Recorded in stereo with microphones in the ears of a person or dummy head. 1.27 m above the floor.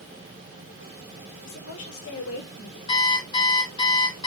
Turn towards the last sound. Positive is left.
turn(degrees=25)  # may be behind; listen again after turning